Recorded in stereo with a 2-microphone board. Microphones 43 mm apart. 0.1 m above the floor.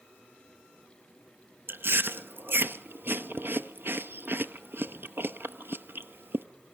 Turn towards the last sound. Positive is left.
turn(degrees=-55)  # may be behind; listen again after turning